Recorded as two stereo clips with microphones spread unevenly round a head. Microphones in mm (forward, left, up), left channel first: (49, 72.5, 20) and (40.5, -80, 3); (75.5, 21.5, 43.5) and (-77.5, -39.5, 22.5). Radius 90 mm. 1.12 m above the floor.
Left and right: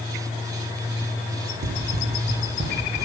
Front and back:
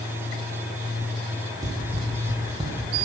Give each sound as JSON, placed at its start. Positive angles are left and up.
{"t": 1.6, "sound": "running footsteps", "azimuth_deg": -85, "distance_m": 2.0}